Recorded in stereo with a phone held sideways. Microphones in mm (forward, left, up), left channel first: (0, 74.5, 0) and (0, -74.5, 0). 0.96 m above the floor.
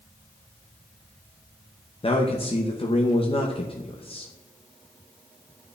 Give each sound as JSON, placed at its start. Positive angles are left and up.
{"t": 2.0, "sound": "a man speaking", "side_deg": 35, "distance_m": 0.7}